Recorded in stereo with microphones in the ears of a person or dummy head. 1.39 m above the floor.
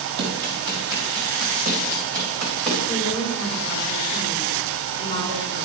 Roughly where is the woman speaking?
Left.